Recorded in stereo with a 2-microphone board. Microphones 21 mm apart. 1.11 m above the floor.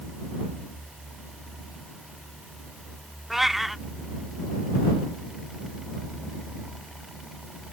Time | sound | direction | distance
3.3 | a cat meowing | 5° right (ahead or behind) | ?